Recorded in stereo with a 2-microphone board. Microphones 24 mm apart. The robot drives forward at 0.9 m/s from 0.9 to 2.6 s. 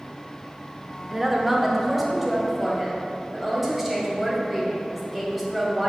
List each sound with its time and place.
1.1 s a woman speaking: 15° right (ahead or behind), 0.8 m; by 5.9 s 5° right (ahead or behind), 1.8 m